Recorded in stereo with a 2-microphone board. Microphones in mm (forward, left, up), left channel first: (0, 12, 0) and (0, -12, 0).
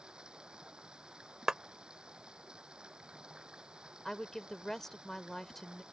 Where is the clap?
35° right (ahead or behind).